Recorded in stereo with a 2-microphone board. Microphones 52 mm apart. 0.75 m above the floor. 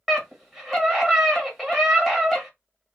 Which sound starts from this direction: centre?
A scream, at 0.1 s.